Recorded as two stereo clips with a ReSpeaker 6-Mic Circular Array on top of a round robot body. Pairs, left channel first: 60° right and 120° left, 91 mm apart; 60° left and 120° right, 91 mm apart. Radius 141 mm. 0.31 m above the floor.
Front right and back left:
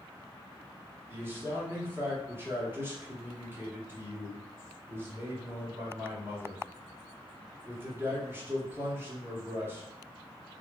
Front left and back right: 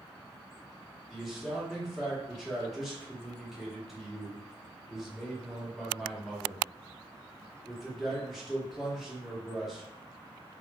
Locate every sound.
1.1 s a man speaking: 155° left, 1.3 m